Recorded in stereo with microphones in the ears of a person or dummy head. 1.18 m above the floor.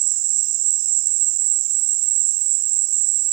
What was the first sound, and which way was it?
An insect, 70° right (ahead or behind).